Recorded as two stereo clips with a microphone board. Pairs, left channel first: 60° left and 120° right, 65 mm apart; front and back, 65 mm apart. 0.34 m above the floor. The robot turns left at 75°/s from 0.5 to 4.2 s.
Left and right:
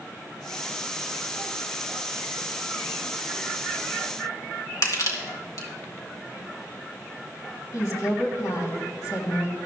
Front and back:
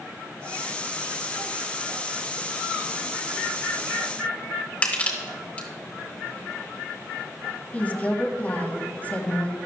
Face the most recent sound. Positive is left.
turn(degrees=60)